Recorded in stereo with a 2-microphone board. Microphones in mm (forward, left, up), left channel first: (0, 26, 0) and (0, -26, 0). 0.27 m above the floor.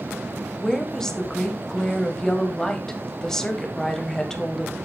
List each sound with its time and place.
0.6 s a woman speaking: 10° left (ahead or behind), 1.5 m